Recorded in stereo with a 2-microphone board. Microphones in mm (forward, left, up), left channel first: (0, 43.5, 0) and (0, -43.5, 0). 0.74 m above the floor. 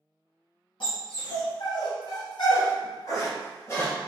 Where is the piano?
I don't hear a piano.